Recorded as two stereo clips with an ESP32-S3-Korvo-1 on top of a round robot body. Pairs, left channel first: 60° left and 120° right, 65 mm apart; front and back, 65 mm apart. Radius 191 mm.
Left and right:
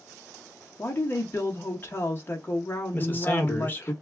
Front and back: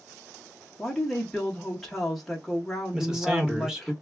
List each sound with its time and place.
0.8 s a woman speaking: 85° left, 1.1 m
2.9 s a man speaking: 105° left, 1.5 m